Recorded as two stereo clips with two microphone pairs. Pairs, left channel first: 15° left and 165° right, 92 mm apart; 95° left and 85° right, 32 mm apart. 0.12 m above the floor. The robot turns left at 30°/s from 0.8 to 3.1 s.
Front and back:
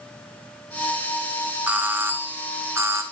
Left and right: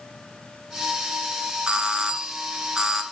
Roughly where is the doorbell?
Right.